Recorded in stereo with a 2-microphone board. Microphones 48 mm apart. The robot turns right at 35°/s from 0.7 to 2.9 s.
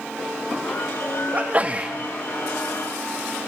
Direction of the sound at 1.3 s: 30° right (ahead or behind).